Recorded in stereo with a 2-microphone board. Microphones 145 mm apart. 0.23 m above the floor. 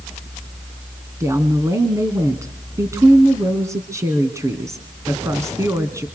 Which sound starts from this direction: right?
A woman speaking, at 1.2 s.